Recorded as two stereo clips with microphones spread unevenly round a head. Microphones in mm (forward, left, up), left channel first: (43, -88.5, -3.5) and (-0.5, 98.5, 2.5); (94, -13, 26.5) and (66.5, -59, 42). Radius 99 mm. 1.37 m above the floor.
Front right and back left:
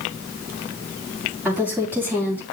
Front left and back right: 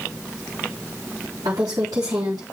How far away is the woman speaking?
About 3.5 m.